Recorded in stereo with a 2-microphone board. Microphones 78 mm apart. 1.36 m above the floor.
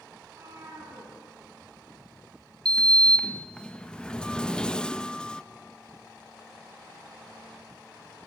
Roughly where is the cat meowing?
Right.